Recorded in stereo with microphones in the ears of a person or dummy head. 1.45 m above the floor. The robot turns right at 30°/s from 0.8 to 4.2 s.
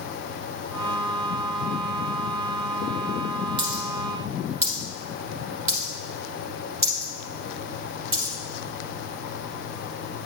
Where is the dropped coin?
30° right (ahead or behind), 1.8 m; by 8.3 s 10° right (ahead or behind), 1.8 m.